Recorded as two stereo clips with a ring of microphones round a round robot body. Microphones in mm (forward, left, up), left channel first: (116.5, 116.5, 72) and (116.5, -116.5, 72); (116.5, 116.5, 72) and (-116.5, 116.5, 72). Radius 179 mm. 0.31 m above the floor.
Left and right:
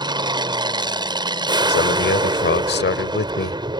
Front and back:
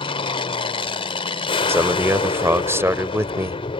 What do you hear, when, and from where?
0.0 s an aircraft: 40° right
1.7 s a man speaking: 105° left